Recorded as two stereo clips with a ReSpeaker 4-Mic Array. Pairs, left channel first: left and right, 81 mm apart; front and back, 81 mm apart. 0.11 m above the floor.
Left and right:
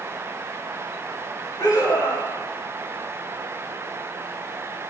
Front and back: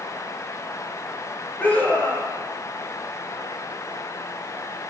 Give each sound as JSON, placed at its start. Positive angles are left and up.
{"t": 1.6, "sound": "a scream", "azimuth_deg": 65, "distance_m": 8.0}